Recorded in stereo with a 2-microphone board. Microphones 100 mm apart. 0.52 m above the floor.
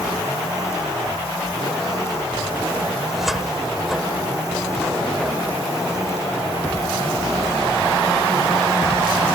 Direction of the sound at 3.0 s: 5° right (ahead or behind).